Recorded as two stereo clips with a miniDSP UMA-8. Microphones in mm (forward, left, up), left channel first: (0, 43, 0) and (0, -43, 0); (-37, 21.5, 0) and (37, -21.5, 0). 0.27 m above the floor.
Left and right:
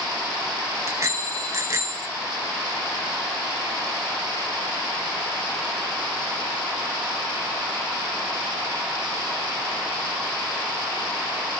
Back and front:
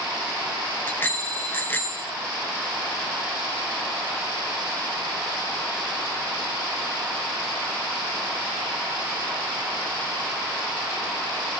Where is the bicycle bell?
145° right, 3 m.